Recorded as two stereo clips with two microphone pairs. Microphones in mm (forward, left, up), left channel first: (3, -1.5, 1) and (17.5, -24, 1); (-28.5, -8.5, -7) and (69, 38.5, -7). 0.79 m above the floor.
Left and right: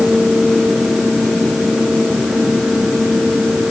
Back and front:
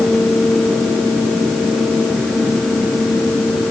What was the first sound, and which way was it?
Only background noise.